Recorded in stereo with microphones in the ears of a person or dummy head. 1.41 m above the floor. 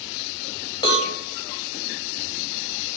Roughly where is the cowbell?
Left.